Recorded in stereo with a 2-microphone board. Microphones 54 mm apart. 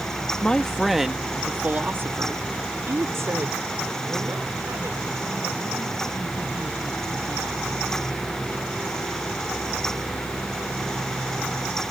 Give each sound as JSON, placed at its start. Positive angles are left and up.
{"t": 0.4, "sound": "a man speaking", "side_deg": 20}